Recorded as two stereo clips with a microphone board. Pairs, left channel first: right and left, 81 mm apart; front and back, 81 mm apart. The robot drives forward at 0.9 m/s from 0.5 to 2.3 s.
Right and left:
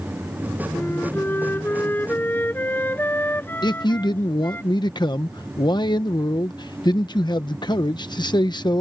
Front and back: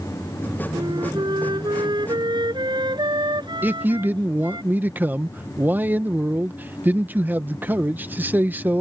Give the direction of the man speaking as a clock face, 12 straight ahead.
4 o'clock.